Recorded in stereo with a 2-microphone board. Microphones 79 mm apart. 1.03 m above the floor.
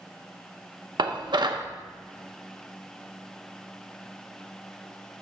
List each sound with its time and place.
1.0 s dishes clattering: 70° right (ahead or behind), 0.7 m